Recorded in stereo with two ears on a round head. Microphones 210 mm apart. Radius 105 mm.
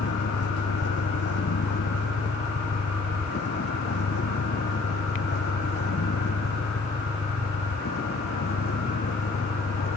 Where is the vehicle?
50° left (ahead or behind); by 10.0 s 45° left (ahead or behind).